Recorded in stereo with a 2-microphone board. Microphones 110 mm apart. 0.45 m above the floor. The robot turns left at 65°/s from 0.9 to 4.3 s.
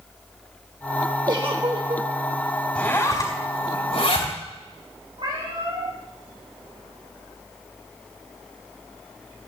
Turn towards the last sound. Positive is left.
turn(degrees=-50)  # may be behind; listen again after turning